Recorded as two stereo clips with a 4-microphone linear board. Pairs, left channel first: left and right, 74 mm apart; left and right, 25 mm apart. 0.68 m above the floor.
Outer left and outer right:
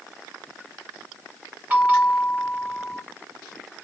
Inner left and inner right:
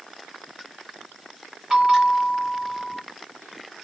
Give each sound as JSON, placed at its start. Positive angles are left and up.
{"t": 1.7, "sound": "a bell", "side_deg": -20, "distance_m": 1.8}